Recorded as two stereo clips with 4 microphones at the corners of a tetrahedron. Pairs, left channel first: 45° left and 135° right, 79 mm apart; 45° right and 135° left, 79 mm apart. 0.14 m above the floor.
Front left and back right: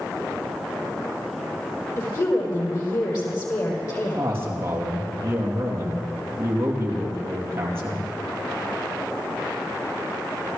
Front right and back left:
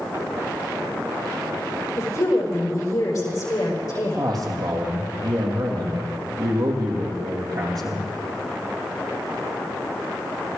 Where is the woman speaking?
5° left, 5.5 m.